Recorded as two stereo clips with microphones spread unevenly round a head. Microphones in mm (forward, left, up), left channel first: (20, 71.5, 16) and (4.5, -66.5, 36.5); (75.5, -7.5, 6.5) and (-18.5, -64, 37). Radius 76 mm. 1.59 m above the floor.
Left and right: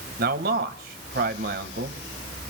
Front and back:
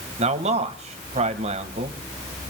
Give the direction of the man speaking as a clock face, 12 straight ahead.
4 o'clock.